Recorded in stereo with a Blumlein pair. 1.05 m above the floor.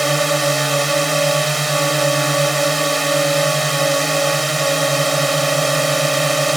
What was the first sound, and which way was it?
A drone, 5° right.